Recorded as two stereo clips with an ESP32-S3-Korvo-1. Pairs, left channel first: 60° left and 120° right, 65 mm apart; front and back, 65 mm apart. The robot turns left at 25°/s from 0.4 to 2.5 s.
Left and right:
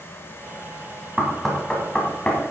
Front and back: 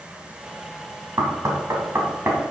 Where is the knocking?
160° left, 2.0 m; by 2.5 s 125° left, 2.0 m.